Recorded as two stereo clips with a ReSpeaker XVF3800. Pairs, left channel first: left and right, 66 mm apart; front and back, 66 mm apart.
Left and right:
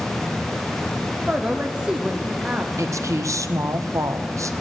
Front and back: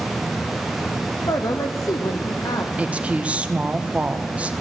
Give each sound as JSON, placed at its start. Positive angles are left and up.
{"t": 1.3, "sound": "a man speaking", "azimuth_deg": -15, "distance_m": 0.9}
{"t": 2.8, "sound": "a woman speaking", "azimuth_deg": -110, "distance_m": 0.9}